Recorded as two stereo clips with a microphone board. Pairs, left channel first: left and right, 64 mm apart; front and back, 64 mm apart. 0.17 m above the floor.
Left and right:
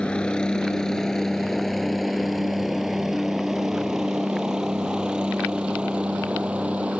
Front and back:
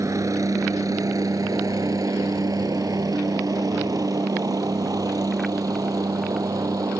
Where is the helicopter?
165° left; by 7.0 s 160° right.